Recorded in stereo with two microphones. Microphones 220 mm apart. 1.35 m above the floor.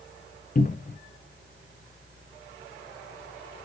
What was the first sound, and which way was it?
A cupboard door, 40° left (ahead or behind).